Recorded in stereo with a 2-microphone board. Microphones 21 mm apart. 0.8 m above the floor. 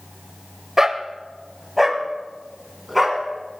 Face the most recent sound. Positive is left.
turn(degrees=0)  # may be behind; listen again after turning